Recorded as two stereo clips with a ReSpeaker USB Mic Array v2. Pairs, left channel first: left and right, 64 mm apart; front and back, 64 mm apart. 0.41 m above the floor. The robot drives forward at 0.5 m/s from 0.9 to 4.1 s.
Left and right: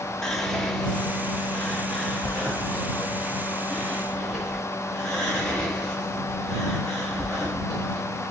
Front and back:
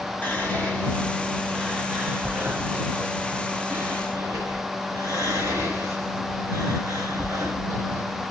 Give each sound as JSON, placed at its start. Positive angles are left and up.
{"t": 0.2, "sound": "whispering", "azimuth_deg": 10, "distance_m": 1.0}